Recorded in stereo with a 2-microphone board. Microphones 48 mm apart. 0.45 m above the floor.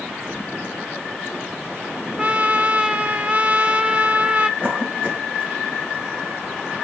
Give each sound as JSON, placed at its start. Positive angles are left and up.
{"t": 2.2, "sound": "a trumpet", "side_deg": -25, "distance_m": 0.7}
{"t": 4.6, "sound": "a cough", "side_deg": -40, "distance_m": 3.5}